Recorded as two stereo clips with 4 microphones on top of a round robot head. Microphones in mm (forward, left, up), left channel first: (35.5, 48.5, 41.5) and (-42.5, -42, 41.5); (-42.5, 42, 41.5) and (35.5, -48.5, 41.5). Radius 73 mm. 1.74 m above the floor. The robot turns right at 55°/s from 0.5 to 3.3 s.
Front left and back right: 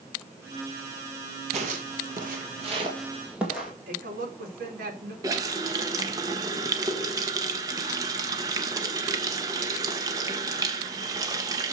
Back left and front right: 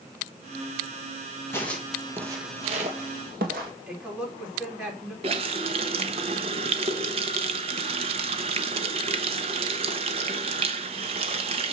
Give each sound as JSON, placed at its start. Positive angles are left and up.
{"t": 1.5, "sound": "footsteps", "azimuth_deg": -160, "distance_m": 3.0}
{"t": 3.9, "sound": "a woman speaking", "azimuth_deg": -130, "distance_m": 4.5}
{"t": 5.2, "sound": "a running tap", "azimuth_deg": -75, "distance_m": 1.1}